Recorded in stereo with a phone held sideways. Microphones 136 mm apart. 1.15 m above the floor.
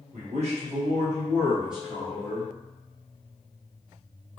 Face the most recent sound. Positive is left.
turn(degrees=20)  # may be behind; listen again after turning